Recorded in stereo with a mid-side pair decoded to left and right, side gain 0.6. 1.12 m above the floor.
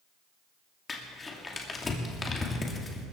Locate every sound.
0.9 s crumpling: 25° left, 2.5 m